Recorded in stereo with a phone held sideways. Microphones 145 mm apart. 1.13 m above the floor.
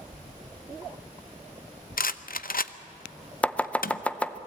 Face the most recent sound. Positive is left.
turn(degrees=10)  # may be behind; listen again after turning